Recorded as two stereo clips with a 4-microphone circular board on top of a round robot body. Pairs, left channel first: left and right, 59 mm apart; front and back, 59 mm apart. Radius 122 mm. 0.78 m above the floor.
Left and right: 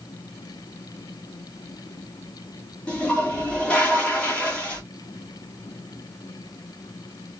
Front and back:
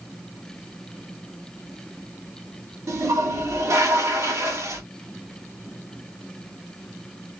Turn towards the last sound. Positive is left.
turn(degrees=155)